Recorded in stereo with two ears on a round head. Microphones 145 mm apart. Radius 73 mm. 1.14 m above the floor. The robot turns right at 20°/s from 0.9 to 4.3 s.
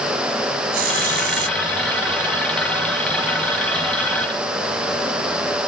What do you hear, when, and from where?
0.7 s a hiss: 65° right (ahead or behind); by 1.6 s 70° right (ahead or behind)